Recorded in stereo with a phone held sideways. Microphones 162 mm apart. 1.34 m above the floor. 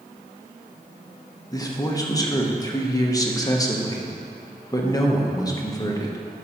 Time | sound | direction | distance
1.5 | a man speaking | 20° left (ahead or behind) | 1.0 m